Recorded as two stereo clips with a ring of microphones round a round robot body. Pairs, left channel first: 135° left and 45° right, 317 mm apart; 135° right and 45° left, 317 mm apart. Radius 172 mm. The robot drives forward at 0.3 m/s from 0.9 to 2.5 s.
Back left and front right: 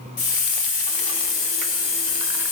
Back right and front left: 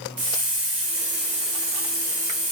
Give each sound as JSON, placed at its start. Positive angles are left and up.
{"t": 0.2, "sound": "a hiss", "azimuth_deg": 90, "distance_m": 1.6}